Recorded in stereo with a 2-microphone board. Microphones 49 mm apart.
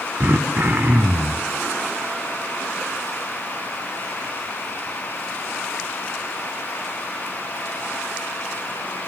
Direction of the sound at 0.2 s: 45° right (ahead or behind).